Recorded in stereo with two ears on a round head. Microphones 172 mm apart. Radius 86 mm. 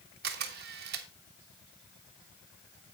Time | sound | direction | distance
0.2 | a camera shutter | 55° right (ahead or behind) | 1.3 m